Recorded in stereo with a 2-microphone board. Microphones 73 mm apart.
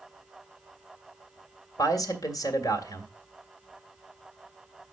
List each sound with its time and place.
1.8 s a man speaking: 55° left (ahead or behind), 1.8 m